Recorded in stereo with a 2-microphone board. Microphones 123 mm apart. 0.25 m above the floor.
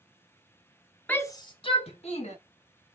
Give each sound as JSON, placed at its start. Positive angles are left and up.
{"t": 1.1, "sound": "a shout", "side_deg": 10, "distance_m": 1.0}